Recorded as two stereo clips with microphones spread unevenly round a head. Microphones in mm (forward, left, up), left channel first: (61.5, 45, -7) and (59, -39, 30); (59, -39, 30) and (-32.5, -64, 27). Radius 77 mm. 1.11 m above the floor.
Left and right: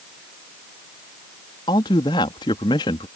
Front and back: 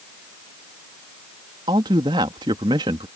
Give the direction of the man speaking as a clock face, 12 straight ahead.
7 o'clock.